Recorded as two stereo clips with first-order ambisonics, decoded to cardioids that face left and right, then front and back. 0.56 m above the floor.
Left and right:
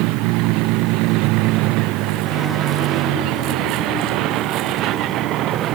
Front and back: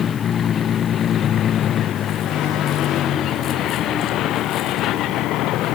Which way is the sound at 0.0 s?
65° right.